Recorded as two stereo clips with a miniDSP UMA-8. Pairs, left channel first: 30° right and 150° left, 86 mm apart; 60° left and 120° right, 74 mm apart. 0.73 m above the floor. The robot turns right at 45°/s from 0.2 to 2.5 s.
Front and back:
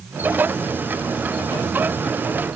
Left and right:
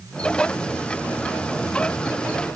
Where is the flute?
No flute in this recording.